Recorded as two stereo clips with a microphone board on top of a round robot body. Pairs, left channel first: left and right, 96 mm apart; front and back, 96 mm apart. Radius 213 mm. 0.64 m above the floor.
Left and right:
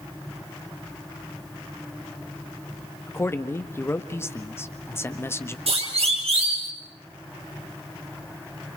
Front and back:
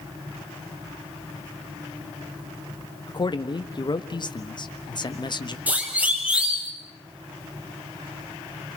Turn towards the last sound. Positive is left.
turn(degrees=-100)